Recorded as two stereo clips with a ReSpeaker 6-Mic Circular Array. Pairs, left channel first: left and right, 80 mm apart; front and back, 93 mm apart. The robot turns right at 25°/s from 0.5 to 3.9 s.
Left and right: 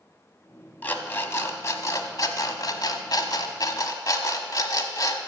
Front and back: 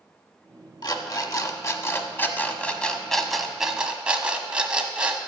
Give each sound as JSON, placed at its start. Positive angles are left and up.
{"t": 0.8, "sound": "an alarm clock", "azimuth_deg": 25, "distance_m": 0.8}